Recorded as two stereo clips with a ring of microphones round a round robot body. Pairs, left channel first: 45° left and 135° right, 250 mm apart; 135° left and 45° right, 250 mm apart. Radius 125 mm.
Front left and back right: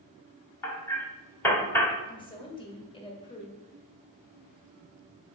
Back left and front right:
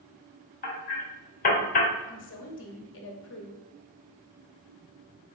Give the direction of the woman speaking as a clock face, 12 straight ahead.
8 o'clock.